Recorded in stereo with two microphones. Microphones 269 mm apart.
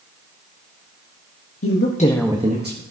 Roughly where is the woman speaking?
Left.